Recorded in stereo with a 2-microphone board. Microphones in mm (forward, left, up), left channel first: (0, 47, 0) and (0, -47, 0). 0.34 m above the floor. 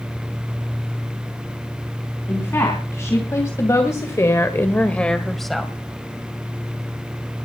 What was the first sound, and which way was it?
A woman speaking, 30° left (ahead or behind).